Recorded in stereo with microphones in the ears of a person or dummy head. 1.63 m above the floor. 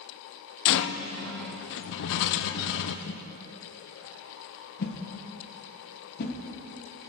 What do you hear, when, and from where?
0.7 s a rattle: 65° left (ahead or behind), 0.6 m
3.1 s a whoosh: 50° left (ahead or behind), 1.4 m